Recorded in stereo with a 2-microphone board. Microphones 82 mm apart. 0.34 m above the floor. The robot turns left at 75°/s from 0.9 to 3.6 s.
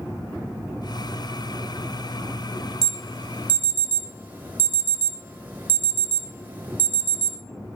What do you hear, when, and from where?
2.8 s an alarm: 5° left (ahead or behind), 1.4 m; by 7.4 s 20° right (ahead or behind), 1.4 m